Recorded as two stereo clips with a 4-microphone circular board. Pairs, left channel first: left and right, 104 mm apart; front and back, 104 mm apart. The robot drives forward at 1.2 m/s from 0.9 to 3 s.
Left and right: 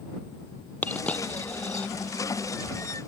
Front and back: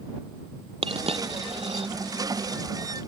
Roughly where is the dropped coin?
Behind.